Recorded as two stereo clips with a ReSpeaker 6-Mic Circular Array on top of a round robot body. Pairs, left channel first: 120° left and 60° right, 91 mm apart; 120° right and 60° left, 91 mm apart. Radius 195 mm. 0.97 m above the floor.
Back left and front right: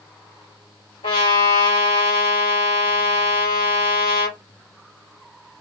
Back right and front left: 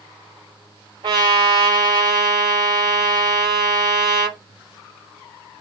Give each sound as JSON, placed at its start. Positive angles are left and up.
{"t": 1.0, "sound": "a trumpet", "azimuth_deg": 100, "distance_m": 3.0}